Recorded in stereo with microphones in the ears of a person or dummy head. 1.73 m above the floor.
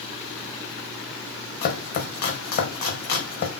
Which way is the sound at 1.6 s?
55° left (ahead or behind).